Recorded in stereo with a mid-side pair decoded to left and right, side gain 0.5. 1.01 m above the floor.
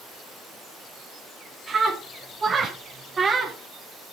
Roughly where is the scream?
Ahead right.